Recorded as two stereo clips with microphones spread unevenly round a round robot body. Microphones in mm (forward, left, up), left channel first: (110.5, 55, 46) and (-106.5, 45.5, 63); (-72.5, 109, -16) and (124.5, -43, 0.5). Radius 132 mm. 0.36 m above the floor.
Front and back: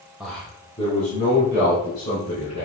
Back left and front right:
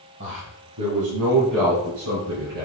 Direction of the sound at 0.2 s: 85° right.